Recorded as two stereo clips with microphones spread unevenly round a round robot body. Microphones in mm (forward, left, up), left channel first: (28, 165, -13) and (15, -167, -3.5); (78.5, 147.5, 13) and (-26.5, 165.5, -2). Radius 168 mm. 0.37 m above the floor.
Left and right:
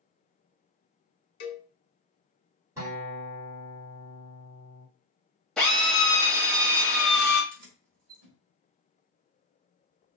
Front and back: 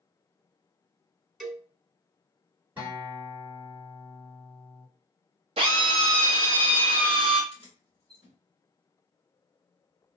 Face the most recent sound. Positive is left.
turn(degrees=-60)